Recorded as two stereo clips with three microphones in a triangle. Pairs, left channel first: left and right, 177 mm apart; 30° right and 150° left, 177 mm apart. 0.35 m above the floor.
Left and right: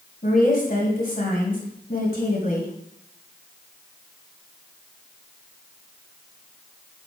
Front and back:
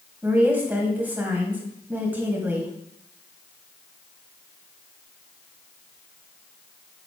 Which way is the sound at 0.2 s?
70° left.